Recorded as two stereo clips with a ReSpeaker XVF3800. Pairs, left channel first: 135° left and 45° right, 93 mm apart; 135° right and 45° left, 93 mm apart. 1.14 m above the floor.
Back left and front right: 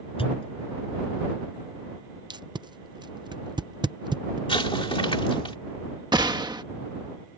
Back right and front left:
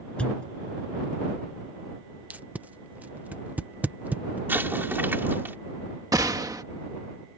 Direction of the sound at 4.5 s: 115° left.